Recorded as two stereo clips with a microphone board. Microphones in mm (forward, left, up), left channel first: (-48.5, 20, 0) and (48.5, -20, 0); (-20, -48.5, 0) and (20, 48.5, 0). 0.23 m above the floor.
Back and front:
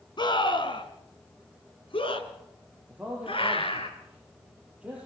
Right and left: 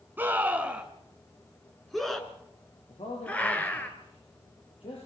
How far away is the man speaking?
About 6.5 m.